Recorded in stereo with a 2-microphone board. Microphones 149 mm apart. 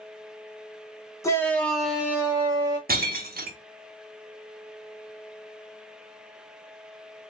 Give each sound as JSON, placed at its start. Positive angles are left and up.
{"t": 1.2, "sound": "a shout", "side_deg": 20, "distance_m": 0.8}
{"t": 2.9, "sound": "breaking glass", "side_deg": -85, "distance_m": 0.6}